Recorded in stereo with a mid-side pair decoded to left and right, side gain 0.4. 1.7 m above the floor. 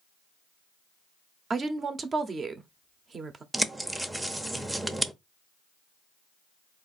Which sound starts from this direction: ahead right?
A woman speaking, at 1.5 s.